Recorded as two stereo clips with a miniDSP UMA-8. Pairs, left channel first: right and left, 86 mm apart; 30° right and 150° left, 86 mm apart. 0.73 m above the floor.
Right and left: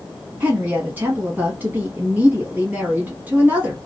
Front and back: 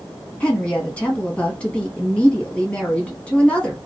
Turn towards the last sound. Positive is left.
turn(degrees=35)